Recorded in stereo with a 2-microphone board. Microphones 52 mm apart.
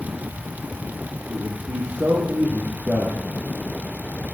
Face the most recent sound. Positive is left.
turn(degrees=-40)  # may be behind; listen again after turning